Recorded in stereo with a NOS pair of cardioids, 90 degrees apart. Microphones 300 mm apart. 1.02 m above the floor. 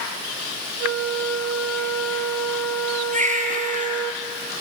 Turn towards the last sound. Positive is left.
turn(degrees=-25)